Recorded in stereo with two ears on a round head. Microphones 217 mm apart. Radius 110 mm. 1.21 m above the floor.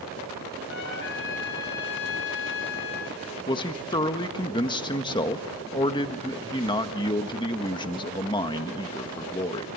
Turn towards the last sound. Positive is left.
turn(degrees=20)  # may be behind; listen again after turning